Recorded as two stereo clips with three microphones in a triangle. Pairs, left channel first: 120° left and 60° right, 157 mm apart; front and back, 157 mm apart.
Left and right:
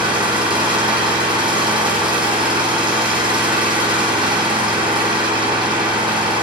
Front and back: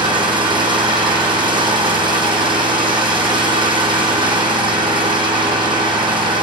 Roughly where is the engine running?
Behind right.